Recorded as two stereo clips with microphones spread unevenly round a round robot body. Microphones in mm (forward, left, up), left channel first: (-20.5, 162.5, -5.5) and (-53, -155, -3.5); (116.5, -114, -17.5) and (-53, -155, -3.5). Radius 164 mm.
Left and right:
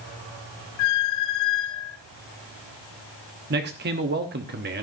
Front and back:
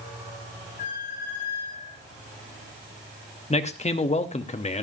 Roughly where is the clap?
I don't hear a clap.